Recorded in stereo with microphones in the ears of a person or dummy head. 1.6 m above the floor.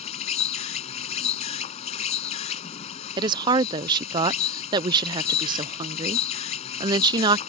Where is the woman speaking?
20° right (ahead or behind).